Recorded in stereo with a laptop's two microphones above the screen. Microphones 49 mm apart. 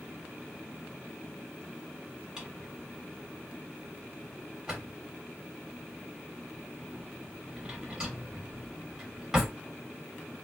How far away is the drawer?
About 1.4 m.